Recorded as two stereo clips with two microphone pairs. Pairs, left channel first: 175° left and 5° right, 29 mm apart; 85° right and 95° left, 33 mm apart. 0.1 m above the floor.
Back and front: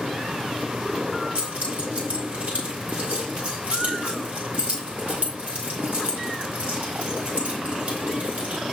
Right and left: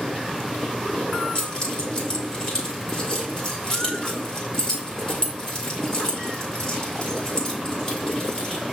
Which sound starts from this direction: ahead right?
Keys jangling, at 1.4 s.